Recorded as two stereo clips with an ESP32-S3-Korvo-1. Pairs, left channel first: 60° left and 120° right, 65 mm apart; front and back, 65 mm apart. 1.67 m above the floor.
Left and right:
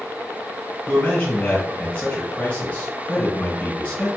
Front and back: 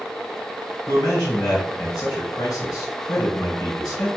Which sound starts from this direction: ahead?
A man speaking, at 0.9 s.